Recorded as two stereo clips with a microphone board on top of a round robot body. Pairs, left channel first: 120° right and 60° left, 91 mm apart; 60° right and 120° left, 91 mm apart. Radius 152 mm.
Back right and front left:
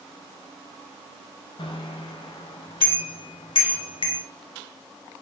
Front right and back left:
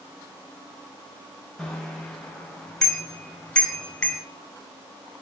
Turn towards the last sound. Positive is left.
turn(degrees=-140)